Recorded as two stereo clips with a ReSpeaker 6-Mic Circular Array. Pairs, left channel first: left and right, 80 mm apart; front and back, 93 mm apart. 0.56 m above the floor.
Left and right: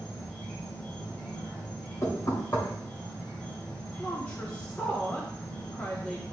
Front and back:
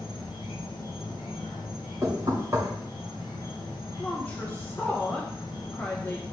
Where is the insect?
25° left, 4 m.